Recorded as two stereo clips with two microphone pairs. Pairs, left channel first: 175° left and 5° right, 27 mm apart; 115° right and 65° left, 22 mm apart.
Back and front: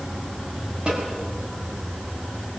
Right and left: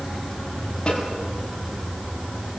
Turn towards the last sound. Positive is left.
turn(degrees=-55)